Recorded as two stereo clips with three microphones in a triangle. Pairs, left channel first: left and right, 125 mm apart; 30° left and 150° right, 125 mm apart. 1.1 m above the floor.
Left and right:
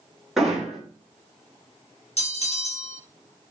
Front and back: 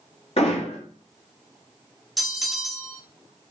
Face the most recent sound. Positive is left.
turn(degrees=120)